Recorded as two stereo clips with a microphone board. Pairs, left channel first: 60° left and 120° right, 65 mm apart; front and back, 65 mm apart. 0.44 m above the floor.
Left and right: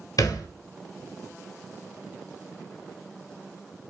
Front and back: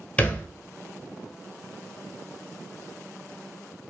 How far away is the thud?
About 0.8 m.